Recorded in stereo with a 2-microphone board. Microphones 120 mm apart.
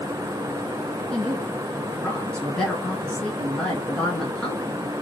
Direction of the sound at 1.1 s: 10° left (ahead or behind).